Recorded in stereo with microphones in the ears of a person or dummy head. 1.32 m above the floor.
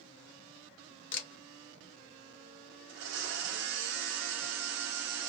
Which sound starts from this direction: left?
A camera shutter, at 1.1 s.